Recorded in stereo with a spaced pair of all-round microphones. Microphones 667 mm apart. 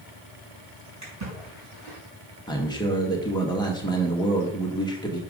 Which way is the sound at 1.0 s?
25° right (ahead or behind).